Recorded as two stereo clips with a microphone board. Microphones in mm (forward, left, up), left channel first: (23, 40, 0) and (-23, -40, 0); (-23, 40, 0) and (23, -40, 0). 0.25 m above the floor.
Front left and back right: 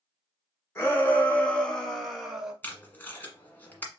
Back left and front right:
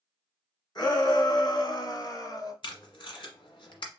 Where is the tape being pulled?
125° left, 1.4 m.